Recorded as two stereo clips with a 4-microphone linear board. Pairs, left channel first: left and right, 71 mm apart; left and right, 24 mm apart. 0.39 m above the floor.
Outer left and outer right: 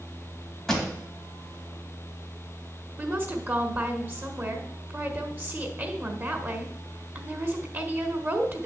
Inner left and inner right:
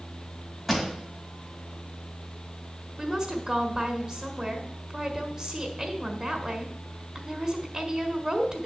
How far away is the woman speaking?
About 1.5 m.